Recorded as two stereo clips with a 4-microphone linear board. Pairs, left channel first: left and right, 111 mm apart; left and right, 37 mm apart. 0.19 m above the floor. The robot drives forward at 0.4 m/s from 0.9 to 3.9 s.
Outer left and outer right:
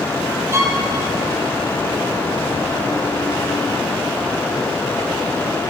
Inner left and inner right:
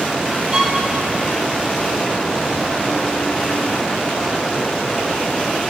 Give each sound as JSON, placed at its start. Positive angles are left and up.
{"t": 0.5, "sound": "a violin", "side_deg": -25, "distance_m": 2.0}